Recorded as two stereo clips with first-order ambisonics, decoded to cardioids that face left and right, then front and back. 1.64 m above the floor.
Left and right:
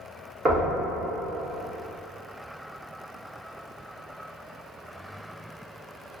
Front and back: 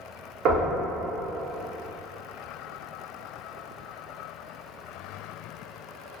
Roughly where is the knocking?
Behind right.